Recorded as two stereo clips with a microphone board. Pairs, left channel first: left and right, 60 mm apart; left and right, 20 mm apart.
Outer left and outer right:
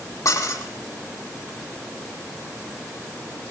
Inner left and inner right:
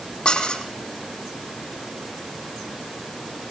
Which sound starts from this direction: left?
Dishes clattering, at 0.2 s.